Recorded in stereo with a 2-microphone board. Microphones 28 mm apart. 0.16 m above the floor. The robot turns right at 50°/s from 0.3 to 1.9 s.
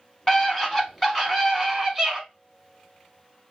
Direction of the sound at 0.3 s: 20° left (ahead or behind).